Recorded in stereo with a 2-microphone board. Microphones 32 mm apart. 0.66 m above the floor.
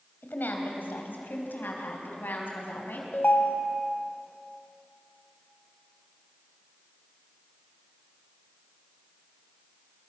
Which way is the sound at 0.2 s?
80° left.